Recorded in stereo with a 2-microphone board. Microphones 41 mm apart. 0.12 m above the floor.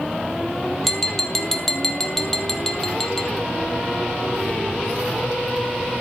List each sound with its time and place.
0.8 s tapping: 10° left (ahead or behind), 1.5 m